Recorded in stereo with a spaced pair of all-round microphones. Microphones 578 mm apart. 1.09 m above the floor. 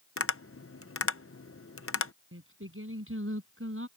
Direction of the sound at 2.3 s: 20° right (ahead or behind).